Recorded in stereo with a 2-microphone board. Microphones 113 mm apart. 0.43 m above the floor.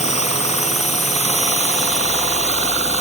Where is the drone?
80° left; by 3.0 s 75° left (ahead or behind).